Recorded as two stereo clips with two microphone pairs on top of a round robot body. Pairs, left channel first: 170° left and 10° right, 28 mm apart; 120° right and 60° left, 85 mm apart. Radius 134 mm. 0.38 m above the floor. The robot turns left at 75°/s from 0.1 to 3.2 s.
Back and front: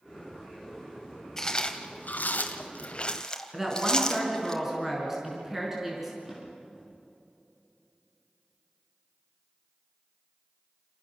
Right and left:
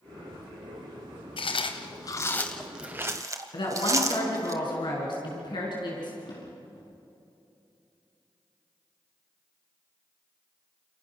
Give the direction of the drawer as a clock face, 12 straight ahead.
3 o'clock.